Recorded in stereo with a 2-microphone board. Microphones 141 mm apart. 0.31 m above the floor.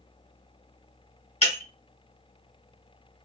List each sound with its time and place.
1.4 s breaking glass: 50° left (ahead or behind), 1.5 m